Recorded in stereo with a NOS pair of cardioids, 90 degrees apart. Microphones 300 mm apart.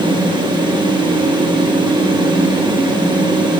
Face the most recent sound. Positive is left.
turn(degrees=-15)